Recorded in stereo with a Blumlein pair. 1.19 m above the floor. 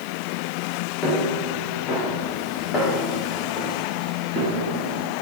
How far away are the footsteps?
About 3.5 m.